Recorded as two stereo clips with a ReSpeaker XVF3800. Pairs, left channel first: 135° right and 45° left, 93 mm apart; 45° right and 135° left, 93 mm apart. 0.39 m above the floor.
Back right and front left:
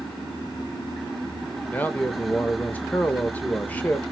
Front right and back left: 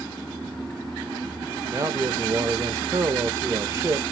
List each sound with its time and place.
1.7 s a man speaking: 165° left, 0.9 m